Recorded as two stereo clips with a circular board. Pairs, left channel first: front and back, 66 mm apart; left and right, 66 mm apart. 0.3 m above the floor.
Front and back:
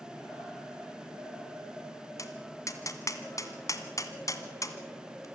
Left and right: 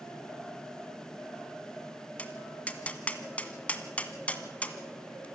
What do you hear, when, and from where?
2.2 s tapping: 20° left, 1.6 m